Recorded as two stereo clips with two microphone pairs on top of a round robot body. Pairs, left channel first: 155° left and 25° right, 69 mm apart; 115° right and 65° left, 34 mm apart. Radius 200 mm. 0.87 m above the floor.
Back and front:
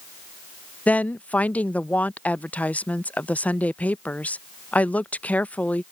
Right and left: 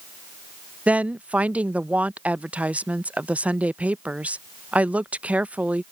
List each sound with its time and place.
0.9 s a woman speaking: 95° left